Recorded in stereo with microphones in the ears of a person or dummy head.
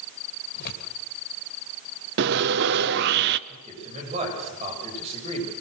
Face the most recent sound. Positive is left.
turn(degrees=-35)  # may be behind; listen again after turning